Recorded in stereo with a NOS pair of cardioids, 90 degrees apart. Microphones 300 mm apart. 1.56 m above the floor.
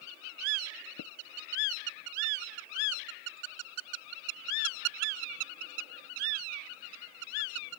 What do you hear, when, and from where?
1.0 s tapping: 60° left